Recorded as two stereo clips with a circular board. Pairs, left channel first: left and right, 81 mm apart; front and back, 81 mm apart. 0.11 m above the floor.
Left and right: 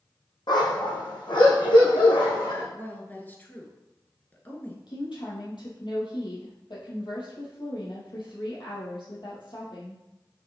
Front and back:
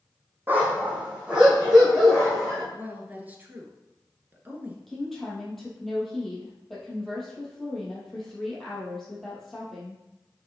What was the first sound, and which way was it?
A dog barking, 115° left.